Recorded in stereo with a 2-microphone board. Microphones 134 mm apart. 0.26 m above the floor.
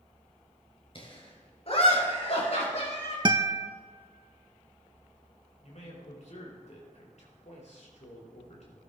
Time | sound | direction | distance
0.9 | laughter | 45° left (ahead or behind) | 5 m
3.2 | a guitar | 35° right (ahead or behind) | 0.6 m
5.6 | a man speaking | 60° left (ahead or behind) | 5 m